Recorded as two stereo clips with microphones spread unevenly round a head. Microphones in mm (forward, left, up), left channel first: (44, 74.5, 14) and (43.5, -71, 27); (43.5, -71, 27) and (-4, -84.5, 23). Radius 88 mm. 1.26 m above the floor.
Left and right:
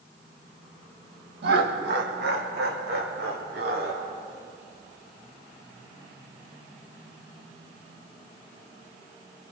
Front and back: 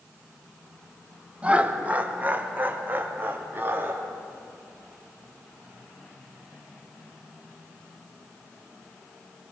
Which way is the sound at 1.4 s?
100° right.